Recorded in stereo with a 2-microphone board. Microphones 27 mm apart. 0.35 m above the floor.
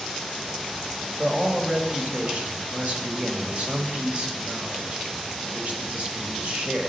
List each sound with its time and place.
1.2 s a man speaking: 50° right (ahead or behind), 1.8 m